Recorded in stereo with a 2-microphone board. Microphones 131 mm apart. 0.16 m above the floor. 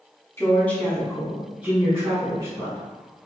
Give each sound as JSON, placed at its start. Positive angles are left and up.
{"t": 0.4, "sound": "a woman speaking", "side_deg": 20, "distance_m": 1.2}